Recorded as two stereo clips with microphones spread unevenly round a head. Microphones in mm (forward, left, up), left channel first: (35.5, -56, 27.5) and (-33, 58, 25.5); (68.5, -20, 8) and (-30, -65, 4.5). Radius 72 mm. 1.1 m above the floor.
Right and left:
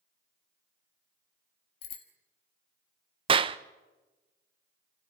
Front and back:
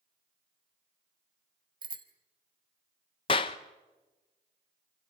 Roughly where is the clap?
Left.